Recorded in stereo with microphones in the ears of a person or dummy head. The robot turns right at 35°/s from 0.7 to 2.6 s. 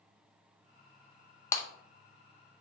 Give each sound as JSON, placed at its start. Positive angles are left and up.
{"t": 1.5, "sound": "breaking glass", "side_deg": 10, "distance_m": 0.5}